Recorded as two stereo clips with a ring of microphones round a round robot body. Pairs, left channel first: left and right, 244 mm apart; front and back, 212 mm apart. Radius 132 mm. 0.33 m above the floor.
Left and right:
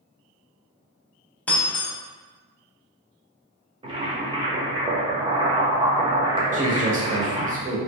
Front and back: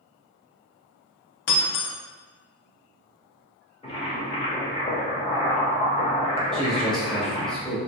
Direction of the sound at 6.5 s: 85° right.